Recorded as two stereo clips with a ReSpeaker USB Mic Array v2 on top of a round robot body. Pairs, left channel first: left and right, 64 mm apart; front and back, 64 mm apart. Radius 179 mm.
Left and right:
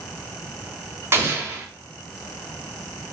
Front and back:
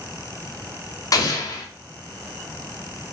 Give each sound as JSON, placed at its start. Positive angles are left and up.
{"t": 1.1, "sound": "an explosion", "azimuth_deg": -35, "distance_m": 0.9}